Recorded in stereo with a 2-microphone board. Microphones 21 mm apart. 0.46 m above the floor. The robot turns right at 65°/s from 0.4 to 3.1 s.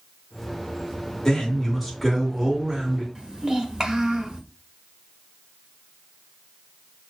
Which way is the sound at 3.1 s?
25° right (ahead or behind).